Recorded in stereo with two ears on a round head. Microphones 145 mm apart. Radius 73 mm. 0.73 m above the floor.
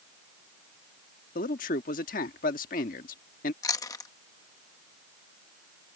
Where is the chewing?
20° left (ahead or behind).